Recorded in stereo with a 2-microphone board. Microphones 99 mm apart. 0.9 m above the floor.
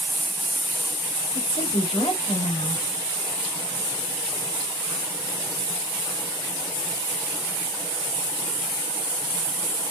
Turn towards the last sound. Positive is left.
turn(degrees=75)  # may be behind; listen again after turning